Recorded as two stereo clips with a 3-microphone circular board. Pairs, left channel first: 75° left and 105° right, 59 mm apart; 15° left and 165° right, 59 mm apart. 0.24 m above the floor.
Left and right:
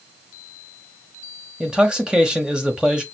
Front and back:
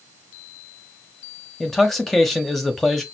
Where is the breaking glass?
No breaking glass in this recording.